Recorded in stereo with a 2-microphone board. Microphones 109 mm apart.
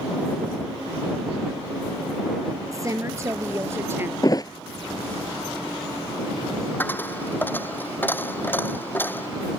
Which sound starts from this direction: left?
A thud, at 4.2 s.